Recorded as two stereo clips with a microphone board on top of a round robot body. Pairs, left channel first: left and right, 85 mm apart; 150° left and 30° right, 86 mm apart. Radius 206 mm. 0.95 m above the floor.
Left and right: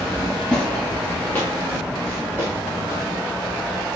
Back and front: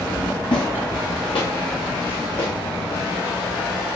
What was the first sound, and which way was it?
Footsteps, 170° left.